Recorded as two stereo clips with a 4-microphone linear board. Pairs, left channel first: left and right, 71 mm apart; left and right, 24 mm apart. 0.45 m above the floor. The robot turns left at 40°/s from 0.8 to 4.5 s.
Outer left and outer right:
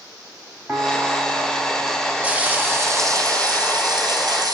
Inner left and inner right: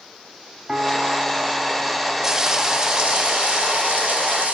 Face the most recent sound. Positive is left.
turn(degrees=-110)